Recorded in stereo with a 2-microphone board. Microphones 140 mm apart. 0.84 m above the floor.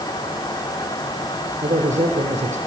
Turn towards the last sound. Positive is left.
turn(degrees=-60)  # may be behind; listen again after turning